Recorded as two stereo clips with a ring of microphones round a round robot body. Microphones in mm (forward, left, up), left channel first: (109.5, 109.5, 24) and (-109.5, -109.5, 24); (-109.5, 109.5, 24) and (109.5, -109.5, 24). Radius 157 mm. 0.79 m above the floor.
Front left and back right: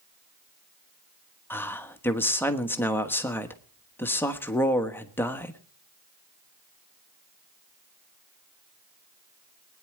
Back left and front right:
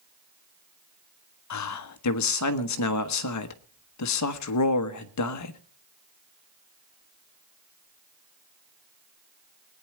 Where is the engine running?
No engine running in this recording.